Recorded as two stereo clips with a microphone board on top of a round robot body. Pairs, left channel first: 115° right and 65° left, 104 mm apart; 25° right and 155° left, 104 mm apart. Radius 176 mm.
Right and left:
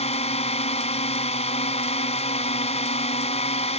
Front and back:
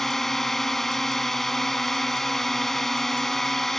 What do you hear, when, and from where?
0.0 s a drone: 110° right